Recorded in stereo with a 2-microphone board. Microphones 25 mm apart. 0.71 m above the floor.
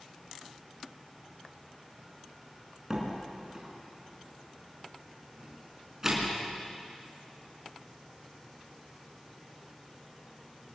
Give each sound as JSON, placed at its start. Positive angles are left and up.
{"t": 2.9, "sound": "a door slam", "side_deg": -20, "distance_m": 5.0}